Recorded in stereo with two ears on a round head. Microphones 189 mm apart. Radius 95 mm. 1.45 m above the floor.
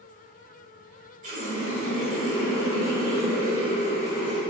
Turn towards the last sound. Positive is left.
turn(degrees=-35)  # may be behind; listen again after turning